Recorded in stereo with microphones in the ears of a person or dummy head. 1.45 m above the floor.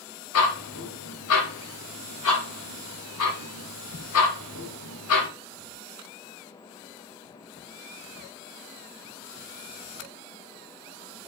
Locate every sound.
0.3 s ticking: 85° left, 2.0 m